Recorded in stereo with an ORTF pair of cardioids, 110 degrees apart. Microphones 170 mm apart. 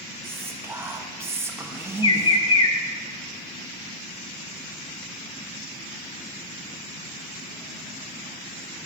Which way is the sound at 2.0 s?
30° left.